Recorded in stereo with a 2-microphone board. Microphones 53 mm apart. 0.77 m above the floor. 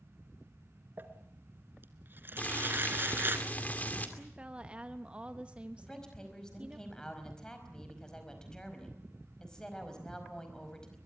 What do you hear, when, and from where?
1.0 s crumpling: 40° right (ahead or behind), 1.7 m
2.4 s boiling: 30° left (ahead or behind), 2.5 m
4.2 s a woman speaking: 25° right (ahead or behind), 1.0 m
5.8 s a woman speaking: 15° left (ahead or behind), 4.5 m